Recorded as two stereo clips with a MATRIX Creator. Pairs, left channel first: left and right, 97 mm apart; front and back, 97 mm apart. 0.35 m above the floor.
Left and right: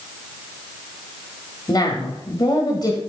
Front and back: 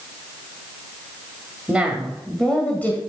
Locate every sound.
1.7 s a woman speaking: 110° left, 1.8 m; by 3.0 s 60° left, 1.8 m